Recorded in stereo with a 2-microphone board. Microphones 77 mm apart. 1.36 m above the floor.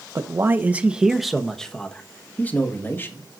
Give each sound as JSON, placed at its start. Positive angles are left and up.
{"t": 0.1, "sound": "a man speaking", "side_deg": -40, "distance_m": 0.9}